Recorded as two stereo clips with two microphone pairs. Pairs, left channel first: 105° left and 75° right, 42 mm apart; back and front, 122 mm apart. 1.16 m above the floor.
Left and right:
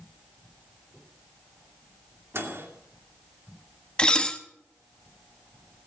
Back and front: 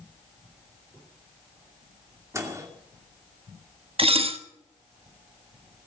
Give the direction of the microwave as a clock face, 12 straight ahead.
2 o'clock.